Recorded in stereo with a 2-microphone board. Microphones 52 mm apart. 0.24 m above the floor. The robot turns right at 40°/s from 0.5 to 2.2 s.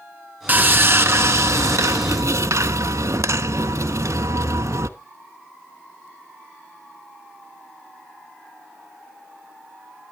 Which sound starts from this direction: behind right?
Sawing, at 0.5 s.